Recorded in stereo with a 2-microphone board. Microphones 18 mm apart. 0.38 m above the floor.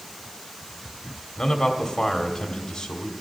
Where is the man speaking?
50° left (ahead or behind), 1.5 m.